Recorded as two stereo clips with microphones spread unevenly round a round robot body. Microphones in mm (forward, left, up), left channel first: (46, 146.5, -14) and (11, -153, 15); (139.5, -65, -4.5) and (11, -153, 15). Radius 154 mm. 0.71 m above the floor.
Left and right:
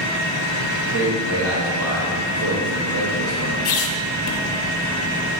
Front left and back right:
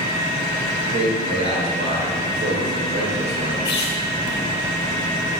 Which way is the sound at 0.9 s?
145° right.